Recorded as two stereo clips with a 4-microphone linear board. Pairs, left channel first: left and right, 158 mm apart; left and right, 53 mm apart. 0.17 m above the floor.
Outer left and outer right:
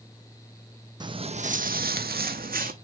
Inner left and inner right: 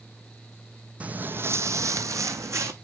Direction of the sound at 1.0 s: 30° right (ahead or behind).